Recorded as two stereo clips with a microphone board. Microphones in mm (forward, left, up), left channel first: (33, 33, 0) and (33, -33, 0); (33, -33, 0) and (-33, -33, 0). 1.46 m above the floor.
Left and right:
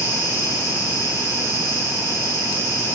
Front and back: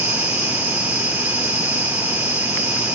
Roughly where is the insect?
Behind left.